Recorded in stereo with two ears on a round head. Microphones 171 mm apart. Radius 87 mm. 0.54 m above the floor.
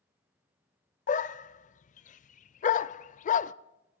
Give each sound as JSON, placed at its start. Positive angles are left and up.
{"t": 1.1, "sound": "a dog barking", "side_deg": 40, "distance_m": 0.6}